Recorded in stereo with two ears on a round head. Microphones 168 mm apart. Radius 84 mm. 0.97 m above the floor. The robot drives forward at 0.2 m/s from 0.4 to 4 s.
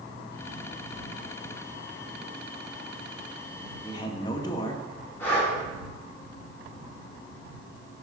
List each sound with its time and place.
3.9 s a man speaking: 25° left (ahead or behind), 1.5 m
5.2 s breathing: 10° left (ahead or behind), 3 m